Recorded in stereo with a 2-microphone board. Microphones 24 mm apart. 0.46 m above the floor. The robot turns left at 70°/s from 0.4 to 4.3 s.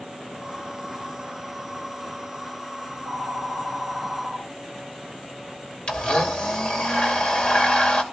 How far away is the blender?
About 2.5 m.